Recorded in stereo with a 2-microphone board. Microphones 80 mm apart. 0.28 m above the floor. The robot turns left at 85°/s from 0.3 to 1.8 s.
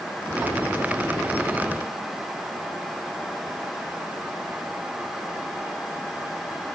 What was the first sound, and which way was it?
Only background noise.